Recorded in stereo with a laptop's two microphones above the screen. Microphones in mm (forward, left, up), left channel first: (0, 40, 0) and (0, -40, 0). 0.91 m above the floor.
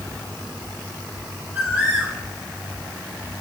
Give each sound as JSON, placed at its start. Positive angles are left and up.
{"t": 1.6, "sound": "a bird", "side_deg": -25, "distance_m": 2.0}